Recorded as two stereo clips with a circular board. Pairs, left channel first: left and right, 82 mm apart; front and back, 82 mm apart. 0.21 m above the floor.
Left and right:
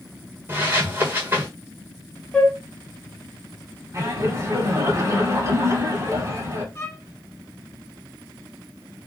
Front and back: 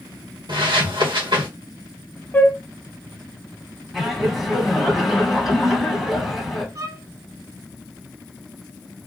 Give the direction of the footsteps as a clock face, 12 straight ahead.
5 o'clock.